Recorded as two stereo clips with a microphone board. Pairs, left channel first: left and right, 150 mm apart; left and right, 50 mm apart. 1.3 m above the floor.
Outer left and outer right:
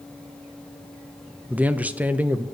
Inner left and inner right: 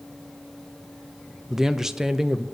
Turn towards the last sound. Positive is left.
turn(degrees=-10)  # may be behind; listen again after turning